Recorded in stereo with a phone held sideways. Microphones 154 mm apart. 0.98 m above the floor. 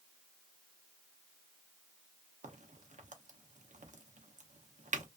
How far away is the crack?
About 0.6 m.